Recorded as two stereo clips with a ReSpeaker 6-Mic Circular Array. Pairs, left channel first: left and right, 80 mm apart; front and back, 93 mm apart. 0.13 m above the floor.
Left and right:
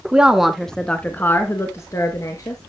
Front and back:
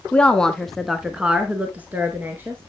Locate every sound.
0.1 s a woman speaking: 40° right, 1.0 m; by 2.6 s 115° left, 1.7 m